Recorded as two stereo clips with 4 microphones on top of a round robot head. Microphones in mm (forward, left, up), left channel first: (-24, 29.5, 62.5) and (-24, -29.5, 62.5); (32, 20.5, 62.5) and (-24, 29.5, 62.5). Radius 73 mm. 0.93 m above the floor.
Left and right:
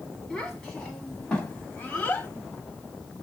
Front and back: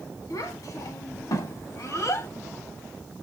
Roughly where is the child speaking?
Ahead.